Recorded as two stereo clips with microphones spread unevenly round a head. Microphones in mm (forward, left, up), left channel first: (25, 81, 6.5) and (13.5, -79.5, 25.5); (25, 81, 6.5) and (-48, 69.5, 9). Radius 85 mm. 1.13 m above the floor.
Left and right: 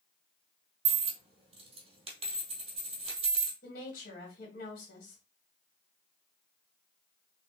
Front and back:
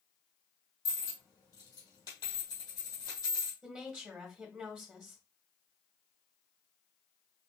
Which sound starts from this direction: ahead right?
A dropped coin, at 0.8 s.